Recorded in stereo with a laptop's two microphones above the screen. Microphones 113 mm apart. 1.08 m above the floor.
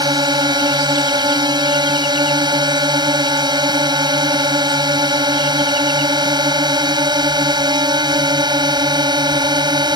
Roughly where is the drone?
Right.